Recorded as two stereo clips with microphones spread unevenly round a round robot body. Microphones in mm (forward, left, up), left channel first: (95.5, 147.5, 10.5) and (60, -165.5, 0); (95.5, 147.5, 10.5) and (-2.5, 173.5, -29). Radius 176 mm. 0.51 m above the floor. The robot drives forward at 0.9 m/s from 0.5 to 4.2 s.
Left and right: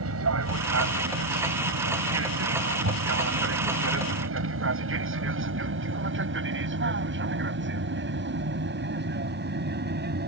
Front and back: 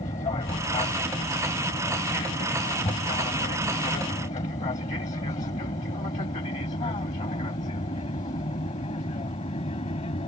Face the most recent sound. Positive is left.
turn(degrees=-40)